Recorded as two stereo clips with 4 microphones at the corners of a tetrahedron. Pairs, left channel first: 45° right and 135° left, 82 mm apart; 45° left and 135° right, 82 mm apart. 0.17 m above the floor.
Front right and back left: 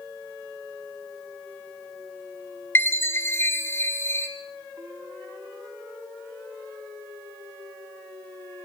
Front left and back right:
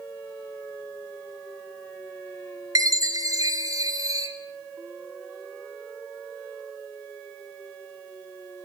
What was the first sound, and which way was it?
A chime, 100° right.